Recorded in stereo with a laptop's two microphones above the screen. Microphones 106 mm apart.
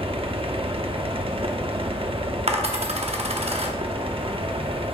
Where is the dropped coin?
70° right (ahead or behind), 0.9 m.